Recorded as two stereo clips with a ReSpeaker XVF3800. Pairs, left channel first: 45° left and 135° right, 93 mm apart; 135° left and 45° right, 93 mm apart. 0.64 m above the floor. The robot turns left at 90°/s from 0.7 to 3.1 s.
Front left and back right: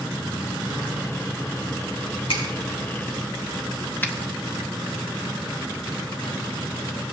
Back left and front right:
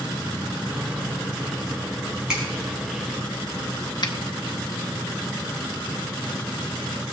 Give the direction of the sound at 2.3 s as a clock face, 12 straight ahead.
11 o'clock.